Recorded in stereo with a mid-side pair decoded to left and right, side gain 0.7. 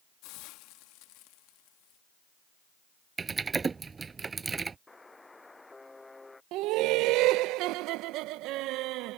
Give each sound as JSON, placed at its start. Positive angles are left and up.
{"t": 0.2, "sound": "a hiss", "azimuth_deg": 65}
{"t": 3.2, "sound": "typing on a keyboard", "azimuth_deg": -25}
{"t": 4.9, "sound": "a buzzer", "azimuth_deg": 10}
{"t": 6.5, "sound": "laughter", "azimuth_deg": -65}